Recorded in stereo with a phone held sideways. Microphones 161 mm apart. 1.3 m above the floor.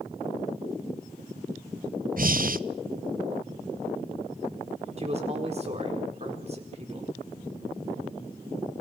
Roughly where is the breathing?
Right.